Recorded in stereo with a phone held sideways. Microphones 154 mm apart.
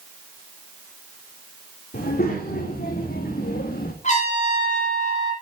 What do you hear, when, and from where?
1.9 s a child speaking: 80° left, 2.5 m
4.0 s a trumpet: 50° left (ahead or behind), 9 m